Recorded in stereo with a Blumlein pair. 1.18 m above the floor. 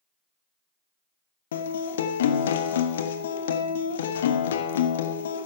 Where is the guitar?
60° left, 1.0 m.